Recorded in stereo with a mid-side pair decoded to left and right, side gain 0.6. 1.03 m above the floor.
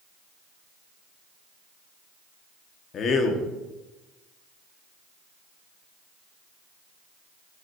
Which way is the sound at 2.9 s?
45° left.